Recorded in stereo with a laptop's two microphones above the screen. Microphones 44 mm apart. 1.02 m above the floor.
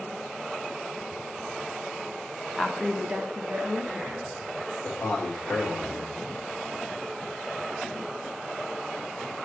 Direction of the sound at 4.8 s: 65° left (ahead or behind).